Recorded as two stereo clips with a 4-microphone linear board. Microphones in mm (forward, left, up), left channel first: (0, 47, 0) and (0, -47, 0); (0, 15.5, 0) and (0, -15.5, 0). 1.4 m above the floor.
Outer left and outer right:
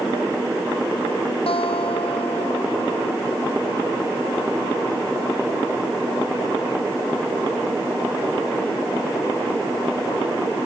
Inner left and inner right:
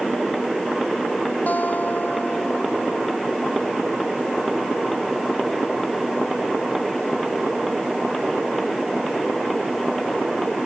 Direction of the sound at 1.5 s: 85° left.